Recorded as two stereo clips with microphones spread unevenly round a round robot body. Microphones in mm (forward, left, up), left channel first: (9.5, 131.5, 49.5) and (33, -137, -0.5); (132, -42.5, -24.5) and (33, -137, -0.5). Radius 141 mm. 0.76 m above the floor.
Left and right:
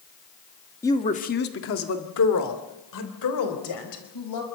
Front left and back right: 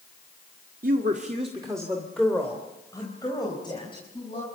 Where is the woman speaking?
Straight behind, 1.5 m; by 4.4 s 115° left, 5 m.